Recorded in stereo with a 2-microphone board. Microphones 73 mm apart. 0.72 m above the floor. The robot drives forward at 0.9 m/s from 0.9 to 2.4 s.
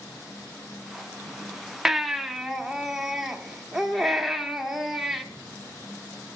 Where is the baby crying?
5° right (ahead or behind), 0.5 m.